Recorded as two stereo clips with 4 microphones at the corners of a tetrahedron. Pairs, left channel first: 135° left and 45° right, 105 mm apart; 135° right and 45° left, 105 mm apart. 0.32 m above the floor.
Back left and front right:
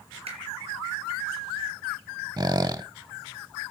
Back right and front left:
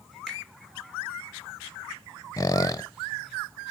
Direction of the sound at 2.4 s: 85° right.